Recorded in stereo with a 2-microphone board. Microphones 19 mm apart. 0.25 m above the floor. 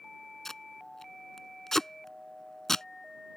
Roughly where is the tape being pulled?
Left.